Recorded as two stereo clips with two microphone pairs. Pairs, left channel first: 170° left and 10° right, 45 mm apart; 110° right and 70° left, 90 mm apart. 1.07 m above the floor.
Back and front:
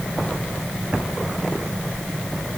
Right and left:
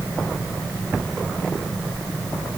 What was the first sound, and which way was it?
Only background noise.